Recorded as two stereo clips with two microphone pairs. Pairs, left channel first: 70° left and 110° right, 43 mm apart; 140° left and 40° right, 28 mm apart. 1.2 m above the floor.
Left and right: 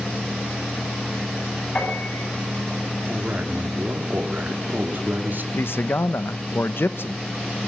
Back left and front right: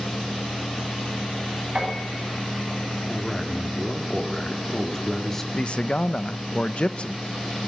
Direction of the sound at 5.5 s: 95° left.